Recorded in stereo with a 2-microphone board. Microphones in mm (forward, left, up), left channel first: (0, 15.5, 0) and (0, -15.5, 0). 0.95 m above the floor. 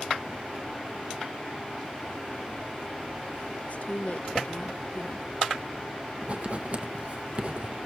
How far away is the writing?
About 0.8 m.